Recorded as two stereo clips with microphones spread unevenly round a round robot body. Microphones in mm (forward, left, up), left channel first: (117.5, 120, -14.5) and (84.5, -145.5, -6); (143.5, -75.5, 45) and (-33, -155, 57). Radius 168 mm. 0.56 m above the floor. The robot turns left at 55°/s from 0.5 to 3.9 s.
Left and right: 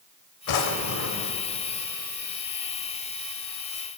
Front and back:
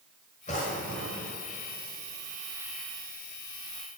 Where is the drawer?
90° left, 1.1 m; by 1.4 s 40° left, 1.1 m.